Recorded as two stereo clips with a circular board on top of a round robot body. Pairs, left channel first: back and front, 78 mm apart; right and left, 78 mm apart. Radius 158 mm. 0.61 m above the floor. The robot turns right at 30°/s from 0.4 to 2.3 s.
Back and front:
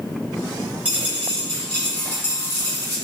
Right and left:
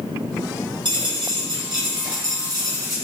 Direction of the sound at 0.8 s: 70° left.